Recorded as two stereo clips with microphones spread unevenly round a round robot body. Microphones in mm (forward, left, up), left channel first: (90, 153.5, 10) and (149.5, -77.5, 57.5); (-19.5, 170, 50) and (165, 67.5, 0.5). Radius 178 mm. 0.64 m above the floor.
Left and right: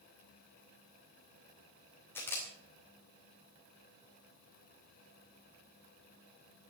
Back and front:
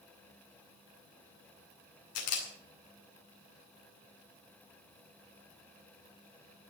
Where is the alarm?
No alarm in this recording.